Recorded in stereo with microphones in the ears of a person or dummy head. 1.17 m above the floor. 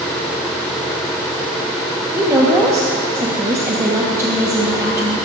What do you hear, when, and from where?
2.1 s a woman speaking: 20° right (ahead or behind), 1.4 m